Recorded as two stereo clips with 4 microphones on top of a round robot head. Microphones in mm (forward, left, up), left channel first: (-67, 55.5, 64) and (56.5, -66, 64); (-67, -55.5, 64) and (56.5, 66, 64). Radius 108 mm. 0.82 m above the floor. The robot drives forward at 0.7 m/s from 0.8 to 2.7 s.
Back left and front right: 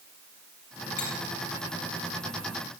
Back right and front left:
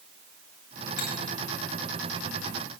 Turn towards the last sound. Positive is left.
turn(degrees=-175)